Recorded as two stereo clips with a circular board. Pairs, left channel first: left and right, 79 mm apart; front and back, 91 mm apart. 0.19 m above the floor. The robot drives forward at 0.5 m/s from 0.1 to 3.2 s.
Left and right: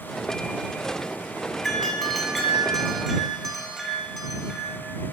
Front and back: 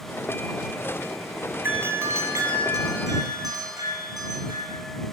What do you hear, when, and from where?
1.6 s a doorbell: 170° left, 1.5 m; by 4.8 s 175° left, 2.0 m